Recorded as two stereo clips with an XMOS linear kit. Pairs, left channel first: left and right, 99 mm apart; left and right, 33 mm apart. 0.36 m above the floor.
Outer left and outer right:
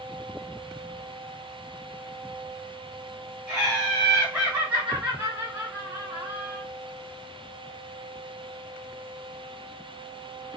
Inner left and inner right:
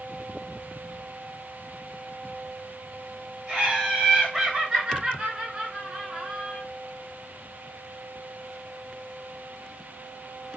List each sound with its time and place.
3.5 s laughter: 10° right (ahead or behind), 1.5 m; by 6.6 s 20° right (ahead or behind), 1.3 m